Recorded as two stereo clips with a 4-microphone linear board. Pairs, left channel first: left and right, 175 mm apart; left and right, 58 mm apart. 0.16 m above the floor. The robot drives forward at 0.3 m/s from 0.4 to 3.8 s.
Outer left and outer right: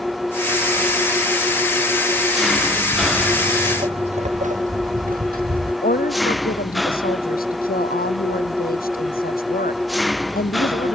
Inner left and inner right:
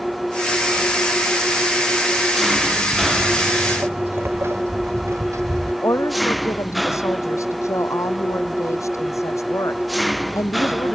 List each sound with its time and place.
0.0 s an engine running: centre (ahead or behind)
2.9 s footsteps: 5° left (ahead or behind); by 5.7 s 60° right (ahead or behind)
5.8 s a woman speaking: 55° left (ahead or behind)